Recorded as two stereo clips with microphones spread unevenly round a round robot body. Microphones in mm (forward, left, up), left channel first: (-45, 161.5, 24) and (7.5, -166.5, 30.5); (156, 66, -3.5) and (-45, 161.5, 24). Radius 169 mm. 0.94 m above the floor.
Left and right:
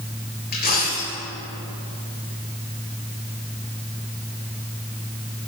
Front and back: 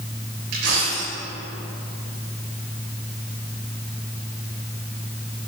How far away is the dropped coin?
About 6 m.